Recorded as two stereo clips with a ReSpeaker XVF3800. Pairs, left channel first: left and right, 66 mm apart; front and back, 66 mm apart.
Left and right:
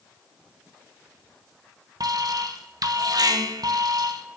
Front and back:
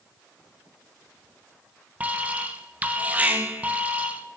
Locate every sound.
2.0 s an alarm: 110° right, 1.0 m